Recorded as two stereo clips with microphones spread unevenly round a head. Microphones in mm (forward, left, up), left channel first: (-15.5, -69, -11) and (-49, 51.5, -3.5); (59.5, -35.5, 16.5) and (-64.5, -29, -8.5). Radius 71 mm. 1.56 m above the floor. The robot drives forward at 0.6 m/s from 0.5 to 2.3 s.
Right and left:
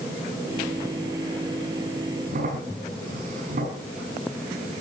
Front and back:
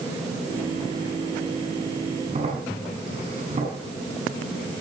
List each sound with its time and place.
2.3 s a crack: 120° left, 7 m